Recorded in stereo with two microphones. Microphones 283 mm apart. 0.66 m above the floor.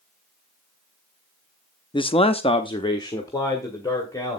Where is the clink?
I don't hear a clink.